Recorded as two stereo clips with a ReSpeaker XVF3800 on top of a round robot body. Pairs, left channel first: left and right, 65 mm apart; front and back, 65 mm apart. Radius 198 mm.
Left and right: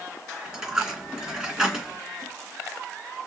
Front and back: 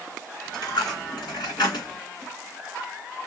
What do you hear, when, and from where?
0.5 s a dropped coin: 10° right, 2.5 m